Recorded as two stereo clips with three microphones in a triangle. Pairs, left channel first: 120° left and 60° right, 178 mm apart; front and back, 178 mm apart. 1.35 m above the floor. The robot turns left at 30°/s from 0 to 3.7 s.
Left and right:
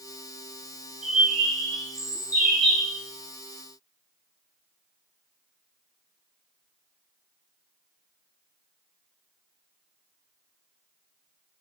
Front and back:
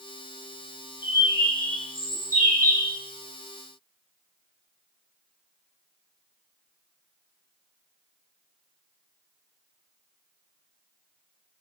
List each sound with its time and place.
1.0 s a bird: 100° right, 0.8 m; by 3.0 s 160° right, 0.8 m